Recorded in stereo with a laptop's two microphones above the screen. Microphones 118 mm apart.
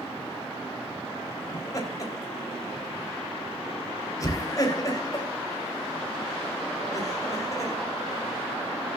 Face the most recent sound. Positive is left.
turn(degrees=30)  # may be behind; listen again after turning